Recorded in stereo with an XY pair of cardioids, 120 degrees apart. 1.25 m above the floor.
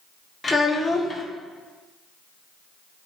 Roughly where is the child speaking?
Ahead.